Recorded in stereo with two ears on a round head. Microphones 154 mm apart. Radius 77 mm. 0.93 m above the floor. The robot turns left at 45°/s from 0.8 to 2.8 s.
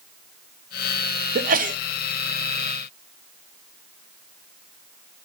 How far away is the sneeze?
About 0.8 m.